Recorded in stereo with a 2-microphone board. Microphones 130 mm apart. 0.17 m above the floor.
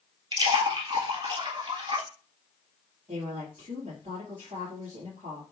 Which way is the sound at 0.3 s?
40° right (ahead or behind).